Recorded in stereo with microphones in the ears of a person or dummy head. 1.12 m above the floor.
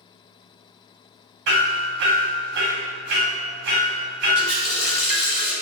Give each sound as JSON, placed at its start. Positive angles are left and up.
{"t": 1.5, "sound": "hammering", "side_deg": -60, "distance_m": 0.9}
{"t": 4.3, "sound": "a running tap", "side_deg": 60, "distance_m": 1.8}